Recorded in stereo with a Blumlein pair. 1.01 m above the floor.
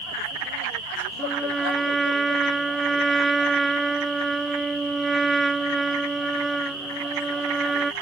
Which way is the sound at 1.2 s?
10° right.